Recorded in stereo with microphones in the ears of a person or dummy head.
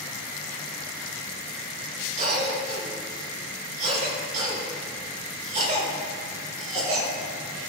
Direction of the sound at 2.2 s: 40° right (ahead or behind).